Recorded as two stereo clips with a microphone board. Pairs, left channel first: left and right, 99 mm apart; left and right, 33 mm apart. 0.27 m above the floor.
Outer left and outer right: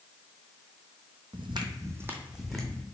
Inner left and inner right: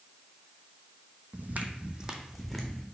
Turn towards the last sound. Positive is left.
turn(degrees=5)  # may be behind; listen again after turning